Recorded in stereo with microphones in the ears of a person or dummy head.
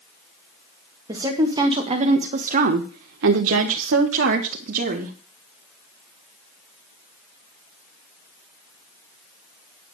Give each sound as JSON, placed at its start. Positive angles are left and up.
{"t": 1.1, "sound": "a woman speaking", "side_deg": -15, "distance_m": 1.9}